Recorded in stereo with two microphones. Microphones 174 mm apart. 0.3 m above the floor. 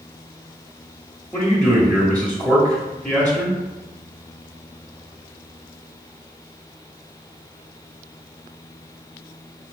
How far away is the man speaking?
About 0.9 m.